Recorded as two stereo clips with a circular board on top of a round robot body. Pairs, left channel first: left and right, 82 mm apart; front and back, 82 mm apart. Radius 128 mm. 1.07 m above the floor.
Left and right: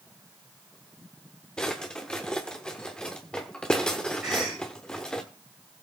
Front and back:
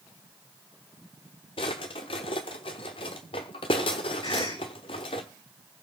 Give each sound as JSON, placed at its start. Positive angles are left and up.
{"t": 1.6, "sound": "a drawer", "azimuth_deg": 10, "distance_m": 0.8}
{"t": 4.2, "sound": "a cough", "azimuth_deg": -10, "distance_m": 6.5}